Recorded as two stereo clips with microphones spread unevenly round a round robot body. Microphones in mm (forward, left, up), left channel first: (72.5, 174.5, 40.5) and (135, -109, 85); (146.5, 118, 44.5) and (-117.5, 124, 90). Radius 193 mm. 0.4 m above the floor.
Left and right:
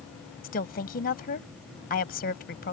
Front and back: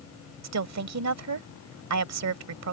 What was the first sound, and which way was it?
A woman speaking, 160° left.